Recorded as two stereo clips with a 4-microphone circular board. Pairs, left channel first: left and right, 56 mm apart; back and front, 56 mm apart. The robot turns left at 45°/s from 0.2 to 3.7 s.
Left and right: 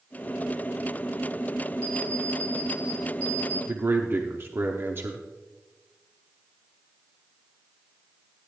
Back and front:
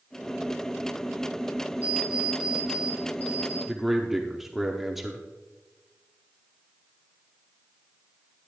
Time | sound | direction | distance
1.8 | an alarm clock | 60° right | 4 m
3.7 | a man speaking | 85° right | 0.9 m